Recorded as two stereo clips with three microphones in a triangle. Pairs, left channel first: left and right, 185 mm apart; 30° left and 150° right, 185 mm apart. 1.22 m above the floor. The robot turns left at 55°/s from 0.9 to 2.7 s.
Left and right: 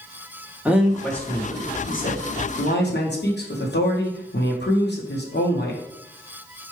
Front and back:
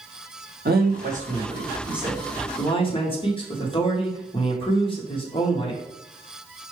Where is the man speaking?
175° right, 1.1 m; by 5.8 s 85° left, 1.1 m.